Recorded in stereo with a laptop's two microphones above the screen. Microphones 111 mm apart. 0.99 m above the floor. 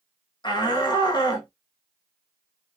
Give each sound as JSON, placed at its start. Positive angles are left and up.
{"t": 0.4, "sound": "a shout", "side_deg": 40, "distance_m": 1.2}